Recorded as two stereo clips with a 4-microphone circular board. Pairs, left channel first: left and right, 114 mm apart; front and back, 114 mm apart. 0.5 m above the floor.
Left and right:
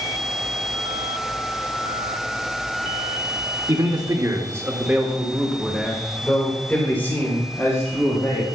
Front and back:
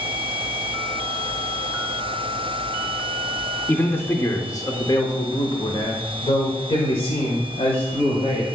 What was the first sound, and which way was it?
A man speaking, 65° right.